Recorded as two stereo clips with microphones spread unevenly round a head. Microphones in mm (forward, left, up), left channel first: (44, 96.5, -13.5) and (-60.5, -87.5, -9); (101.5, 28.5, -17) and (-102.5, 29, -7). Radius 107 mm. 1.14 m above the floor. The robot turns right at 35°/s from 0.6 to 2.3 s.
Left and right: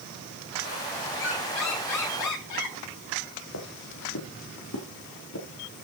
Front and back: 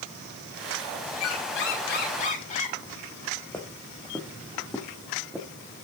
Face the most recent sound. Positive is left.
turn(degrees=95)